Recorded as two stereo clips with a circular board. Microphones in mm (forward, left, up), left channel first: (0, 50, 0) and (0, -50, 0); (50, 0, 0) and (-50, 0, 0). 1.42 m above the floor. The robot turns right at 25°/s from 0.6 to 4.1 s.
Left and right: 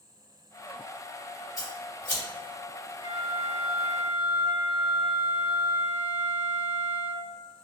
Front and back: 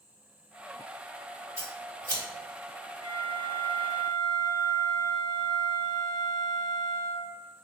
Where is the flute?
125° right, 1.2 m; by 7.3 s 100° right, 1.2 m.